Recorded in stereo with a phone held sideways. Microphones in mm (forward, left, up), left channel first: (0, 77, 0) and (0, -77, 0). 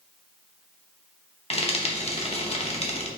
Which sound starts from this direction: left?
Frying, at 1.5 s.